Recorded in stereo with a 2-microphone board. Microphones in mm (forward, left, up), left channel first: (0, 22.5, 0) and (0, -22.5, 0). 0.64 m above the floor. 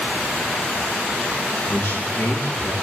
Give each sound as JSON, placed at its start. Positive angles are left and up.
{"t": 1.7, "sound": "a man speaking", "side_deg": 70, "distance_m": 8.5}